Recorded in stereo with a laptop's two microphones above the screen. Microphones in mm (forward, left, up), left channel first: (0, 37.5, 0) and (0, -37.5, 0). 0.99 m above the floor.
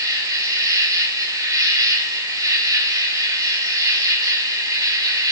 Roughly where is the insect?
Right.